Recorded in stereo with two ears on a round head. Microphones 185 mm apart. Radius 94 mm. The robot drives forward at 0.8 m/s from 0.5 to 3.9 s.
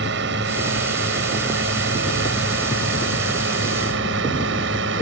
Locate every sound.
0.0 s a drone: 55° right (ahead or behind); by 5.0 s 60° right (ahead or behind)